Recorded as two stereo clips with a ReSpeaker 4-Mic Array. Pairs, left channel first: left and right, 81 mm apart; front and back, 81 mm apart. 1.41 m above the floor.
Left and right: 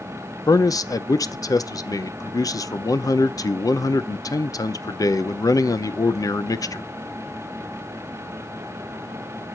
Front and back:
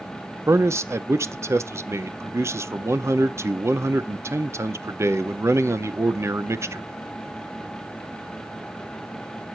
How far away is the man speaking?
About 0.7 m.